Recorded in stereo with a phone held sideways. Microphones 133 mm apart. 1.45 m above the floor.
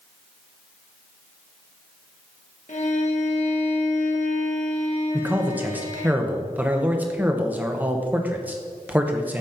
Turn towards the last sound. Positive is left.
turn(degrees=-10)  # may be behind; listen again after turning